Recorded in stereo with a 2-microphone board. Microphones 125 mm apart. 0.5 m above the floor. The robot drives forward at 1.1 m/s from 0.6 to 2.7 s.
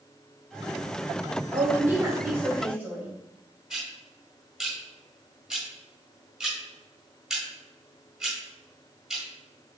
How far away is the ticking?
About 1.6 m.